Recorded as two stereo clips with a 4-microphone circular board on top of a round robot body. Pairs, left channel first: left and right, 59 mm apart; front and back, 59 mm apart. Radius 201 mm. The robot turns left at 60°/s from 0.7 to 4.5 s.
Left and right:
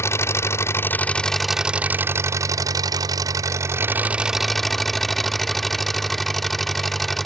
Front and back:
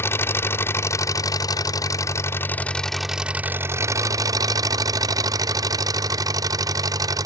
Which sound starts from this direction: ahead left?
An engine running, at 0.0 s.